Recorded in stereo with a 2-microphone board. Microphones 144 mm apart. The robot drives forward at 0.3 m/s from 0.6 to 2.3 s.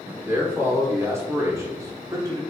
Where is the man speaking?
15° right (ahead or behind), 1.7 m; by 2.4 s 25° right (ahead or behind), 1.2 m.